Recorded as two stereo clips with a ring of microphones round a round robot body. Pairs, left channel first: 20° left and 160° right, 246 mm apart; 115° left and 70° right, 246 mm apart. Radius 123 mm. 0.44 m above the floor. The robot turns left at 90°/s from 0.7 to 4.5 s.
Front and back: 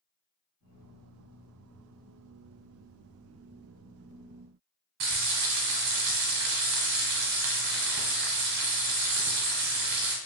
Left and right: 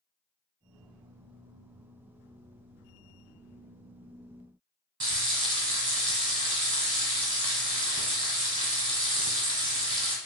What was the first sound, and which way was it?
Frying, 140° right.